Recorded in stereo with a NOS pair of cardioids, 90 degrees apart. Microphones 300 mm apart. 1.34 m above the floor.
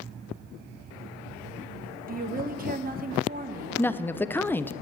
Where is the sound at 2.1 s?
30° right, 1.2 m.